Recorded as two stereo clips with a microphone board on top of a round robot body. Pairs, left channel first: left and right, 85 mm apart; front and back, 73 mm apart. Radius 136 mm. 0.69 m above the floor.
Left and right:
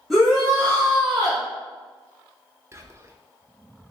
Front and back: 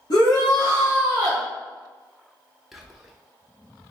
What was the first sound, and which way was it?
A shout, straight ahead.